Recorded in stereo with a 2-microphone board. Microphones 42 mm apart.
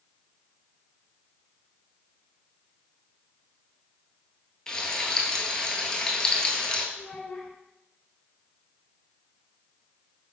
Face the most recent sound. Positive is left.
turn(degrees=20)  # may be behind; listen again after turning